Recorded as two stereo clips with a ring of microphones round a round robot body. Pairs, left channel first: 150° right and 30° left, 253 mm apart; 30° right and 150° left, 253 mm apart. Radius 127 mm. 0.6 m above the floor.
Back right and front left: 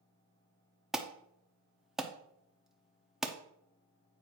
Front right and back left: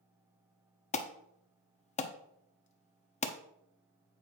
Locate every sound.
0.9 s an alarm: 55° right, 0.8 m